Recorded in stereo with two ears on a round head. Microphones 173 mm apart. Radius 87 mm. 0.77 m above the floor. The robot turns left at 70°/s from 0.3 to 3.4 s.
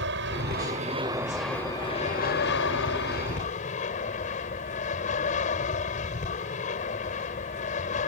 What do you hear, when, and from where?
0.0 s an aircraft: 100° right; by 8.1 s 45° left